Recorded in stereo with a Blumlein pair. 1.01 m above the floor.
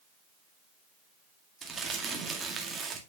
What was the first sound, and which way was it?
Crumpling, 15° right.